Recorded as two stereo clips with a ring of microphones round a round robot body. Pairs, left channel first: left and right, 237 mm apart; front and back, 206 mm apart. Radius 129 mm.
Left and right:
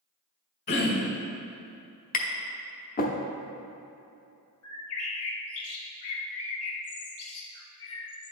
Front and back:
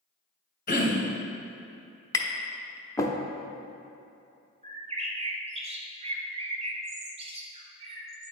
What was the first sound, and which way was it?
Throat clearing, 45° left.